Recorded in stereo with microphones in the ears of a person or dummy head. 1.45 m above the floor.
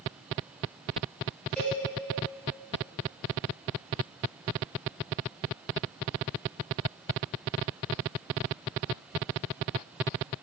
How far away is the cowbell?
About 1.4 m.